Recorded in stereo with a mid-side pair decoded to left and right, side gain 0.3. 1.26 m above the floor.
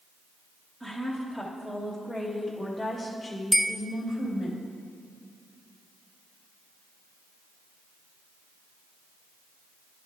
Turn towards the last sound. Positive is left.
turn(degrees=10)